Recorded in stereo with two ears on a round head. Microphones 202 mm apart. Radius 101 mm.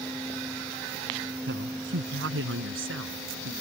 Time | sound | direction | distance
1.5 | a woman speaking | 55° right (ahead or behind) | ?